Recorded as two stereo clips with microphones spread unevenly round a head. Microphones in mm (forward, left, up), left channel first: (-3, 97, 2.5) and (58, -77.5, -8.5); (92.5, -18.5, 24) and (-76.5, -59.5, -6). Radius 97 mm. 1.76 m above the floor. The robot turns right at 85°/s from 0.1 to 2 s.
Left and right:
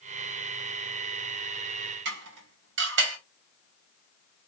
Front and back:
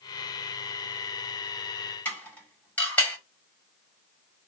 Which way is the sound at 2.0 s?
60° right.